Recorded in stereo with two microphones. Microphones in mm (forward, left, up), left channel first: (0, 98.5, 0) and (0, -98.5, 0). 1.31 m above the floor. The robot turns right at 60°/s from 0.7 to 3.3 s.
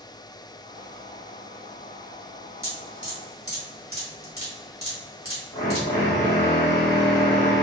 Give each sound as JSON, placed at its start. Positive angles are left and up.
{"t": 2.6, "sound": "dripping", "side_deg": -15, "distance_m": 2.0}
{"t": 5.5, "sound": "a drill", "side_deg": 60, "distance_m": 1.6}